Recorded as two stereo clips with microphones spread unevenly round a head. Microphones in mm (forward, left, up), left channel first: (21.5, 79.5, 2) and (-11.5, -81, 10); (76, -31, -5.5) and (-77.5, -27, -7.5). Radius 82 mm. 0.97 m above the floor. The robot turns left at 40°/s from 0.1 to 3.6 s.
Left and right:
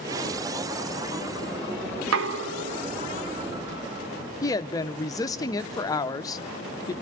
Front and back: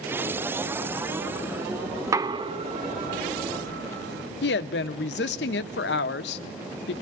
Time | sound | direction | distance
2.0 | knocking | 105° right | 0.5 m
4.4 | a woman speaking | 10° left | 0.6 m